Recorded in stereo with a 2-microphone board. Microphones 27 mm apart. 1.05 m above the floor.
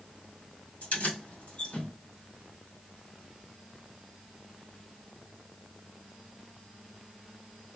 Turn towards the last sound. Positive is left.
turn(degrees=70)  # may be behind; listen again after turning